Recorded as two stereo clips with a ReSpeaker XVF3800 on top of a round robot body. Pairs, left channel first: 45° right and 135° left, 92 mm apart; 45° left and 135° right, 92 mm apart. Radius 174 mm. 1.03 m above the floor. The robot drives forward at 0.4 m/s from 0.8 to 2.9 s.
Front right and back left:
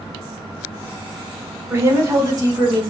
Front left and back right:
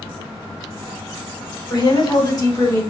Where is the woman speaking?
75° left, 1.5 m; by 2.8 s 95° left, 1.4 m.